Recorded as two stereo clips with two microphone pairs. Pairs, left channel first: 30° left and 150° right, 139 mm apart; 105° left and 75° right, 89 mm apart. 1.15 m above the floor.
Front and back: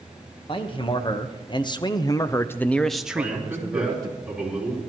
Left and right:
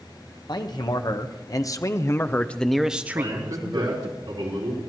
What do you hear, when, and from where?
0.5 s a man speaking: 75° left, 1.3 m; by 4.2 s 95° right, 0.8 m
3.1 s a man speaking: 70° right, 4 m